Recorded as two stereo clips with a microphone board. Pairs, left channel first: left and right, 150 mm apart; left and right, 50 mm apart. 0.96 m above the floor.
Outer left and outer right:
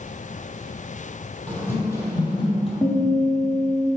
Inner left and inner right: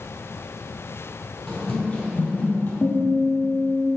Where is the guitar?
15° left (ahead or behind), 1.1 m.